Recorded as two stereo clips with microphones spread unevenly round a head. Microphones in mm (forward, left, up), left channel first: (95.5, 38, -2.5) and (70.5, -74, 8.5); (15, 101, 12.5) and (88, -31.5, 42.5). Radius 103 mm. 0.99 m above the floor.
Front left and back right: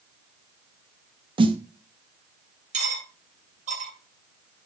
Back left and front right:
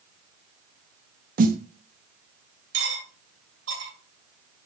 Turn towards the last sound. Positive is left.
turn(degrees=-85)